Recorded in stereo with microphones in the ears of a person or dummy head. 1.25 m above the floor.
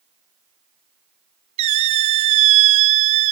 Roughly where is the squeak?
Right.